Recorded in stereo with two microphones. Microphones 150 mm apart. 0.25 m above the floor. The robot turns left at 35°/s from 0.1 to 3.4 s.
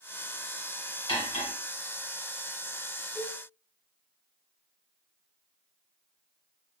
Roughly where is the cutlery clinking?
Left.